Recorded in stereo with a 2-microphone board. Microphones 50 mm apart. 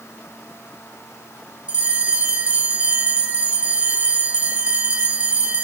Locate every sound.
1.7 s a bell: 20° right (ahead or behind), 0.5 m